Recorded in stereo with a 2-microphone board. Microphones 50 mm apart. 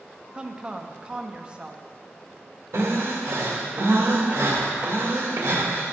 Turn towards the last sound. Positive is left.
turn(degrees=-55)  # may be behind; listen again after turning